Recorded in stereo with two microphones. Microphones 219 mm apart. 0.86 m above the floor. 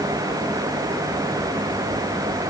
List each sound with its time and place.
Only background noise.